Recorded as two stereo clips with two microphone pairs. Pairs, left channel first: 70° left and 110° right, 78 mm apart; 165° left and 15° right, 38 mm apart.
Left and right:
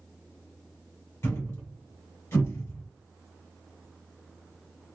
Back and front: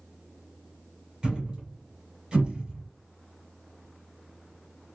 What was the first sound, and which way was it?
A thud, 40° left.